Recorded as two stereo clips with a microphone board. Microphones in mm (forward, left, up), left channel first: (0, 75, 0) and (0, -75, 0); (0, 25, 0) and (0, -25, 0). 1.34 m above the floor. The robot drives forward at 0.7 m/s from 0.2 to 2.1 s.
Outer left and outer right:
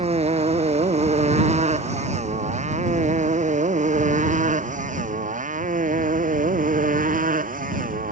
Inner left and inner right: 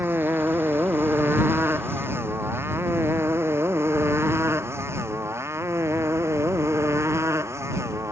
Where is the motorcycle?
45° right (ahead or behind); by 8.1 s 65° right (ahead or behind).